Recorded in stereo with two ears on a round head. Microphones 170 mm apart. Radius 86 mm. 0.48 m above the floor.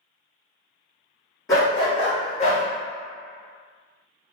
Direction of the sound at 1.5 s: 20° left (ahead or behind).